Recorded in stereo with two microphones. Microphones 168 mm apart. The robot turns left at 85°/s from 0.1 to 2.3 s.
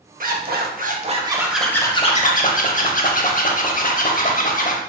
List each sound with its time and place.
0.2 s a zipper: 60° right, 0.6 m; by 4.8 s 120° left, 0.6 m